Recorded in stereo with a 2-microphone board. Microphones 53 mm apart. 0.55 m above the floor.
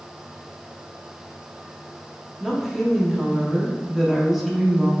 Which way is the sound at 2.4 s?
Centre (ahead or behind).